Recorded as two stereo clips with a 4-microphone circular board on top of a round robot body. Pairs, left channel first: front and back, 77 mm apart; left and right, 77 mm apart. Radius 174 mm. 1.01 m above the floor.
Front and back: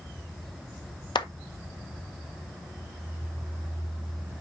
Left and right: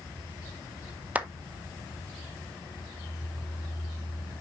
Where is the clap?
20° right, 1.4 m.